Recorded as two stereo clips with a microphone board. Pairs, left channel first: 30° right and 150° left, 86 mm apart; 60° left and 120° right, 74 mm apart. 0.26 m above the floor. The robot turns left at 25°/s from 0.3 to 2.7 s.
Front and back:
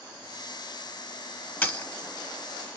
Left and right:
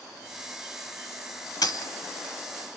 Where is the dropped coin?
35° left, 0.9 m; by 1.9 s 30° left, 0.9 m.